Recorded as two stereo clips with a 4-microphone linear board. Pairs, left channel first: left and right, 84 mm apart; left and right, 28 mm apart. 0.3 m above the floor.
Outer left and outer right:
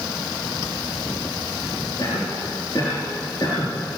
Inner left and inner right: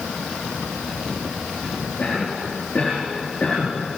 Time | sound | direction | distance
2.0 | a cough | 40° left (ahead or behind) | 5.5 m